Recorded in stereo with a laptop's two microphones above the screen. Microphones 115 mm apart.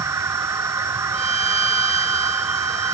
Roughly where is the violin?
Left.